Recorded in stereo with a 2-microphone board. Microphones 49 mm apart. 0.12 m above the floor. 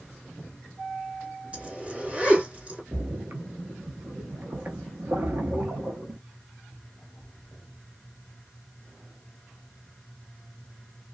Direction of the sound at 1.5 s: 25° right (ahead or behind).